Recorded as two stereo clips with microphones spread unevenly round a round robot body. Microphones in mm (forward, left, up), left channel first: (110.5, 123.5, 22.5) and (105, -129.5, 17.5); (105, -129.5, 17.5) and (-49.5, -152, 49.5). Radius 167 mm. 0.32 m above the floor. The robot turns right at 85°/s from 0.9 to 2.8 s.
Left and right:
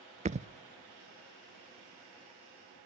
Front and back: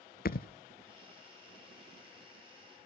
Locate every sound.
0.2 s a thud: 25° right, 0.6 m